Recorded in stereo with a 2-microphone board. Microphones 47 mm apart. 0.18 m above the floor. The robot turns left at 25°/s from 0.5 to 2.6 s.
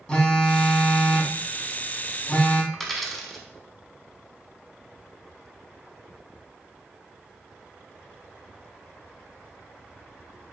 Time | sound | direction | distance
0.1 | a phone buzzing | 15° left (ahead or behind) | 0.5 m
2.7 | a dropped coin | 5° left (ahead or behind) | 0.6 m